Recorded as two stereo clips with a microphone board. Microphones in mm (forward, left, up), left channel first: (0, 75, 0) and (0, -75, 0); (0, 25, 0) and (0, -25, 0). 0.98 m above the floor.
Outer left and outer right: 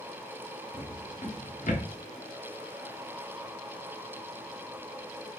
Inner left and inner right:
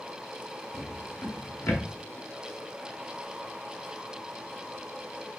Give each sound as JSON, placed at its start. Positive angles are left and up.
{"t": 0.7, "sound": "a drawer", "side_deg": 55, "distance_m": 1.3}